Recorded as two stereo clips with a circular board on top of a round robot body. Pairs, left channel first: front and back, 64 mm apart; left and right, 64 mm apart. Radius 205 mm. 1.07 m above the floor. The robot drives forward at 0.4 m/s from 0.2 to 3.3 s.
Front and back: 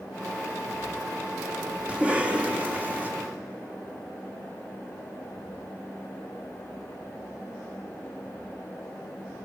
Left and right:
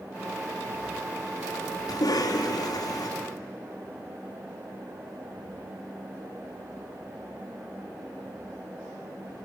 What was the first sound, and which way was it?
A cough, 105° left.